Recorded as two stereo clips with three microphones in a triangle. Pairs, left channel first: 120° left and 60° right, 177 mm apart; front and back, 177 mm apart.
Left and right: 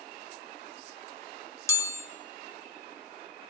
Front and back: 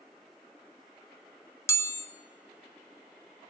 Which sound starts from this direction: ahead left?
A chime, at 1.7 s.